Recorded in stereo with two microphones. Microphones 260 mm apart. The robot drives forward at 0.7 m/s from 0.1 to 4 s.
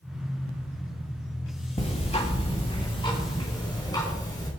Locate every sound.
1.8 s ticking: 25° left (ahead or behind), 2 m; by 4.5 s 15° left (ahead or behind), 3.5 m